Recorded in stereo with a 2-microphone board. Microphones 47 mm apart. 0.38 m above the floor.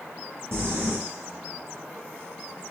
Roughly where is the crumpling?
Right.